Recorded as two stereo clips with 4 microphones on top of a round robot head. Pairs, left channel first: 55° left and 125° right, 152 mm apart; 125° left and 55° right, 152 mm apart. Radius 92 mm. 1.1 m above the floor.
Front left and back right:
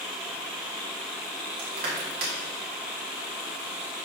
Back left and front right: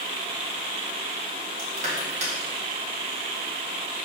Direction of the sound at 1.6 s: 100° right.